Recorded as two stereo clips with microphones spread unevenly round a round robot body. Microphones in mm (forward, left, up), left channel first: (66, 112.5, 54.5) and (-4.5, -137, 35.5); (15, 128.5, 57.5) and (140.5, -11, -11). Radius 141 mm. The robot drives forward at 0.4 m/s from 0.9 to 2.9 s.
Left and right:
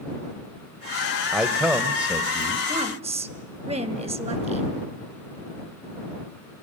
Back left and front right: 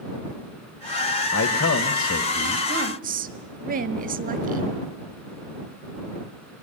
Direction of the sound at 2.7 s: 40° right.